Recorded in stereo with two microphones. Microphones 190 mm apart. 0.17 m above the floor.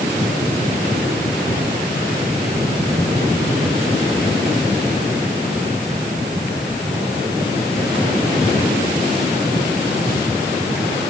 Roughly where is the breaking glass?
No breaking glass in this recording.